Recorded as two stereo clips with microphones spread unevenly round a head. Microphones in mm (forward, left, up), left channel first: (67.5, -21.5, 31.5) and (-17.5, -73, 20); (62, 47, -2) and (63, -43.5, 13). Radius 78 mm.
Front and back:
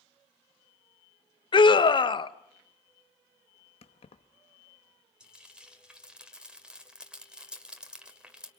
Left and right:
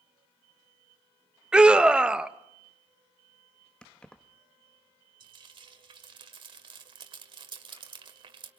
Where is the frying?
65° right, 1.9 m.